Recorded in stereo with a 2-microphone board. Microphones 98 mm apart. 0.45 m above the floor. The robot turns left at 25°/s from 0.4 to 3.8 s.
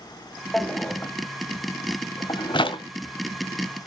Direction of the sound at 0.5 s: 10° left (ahead or behind).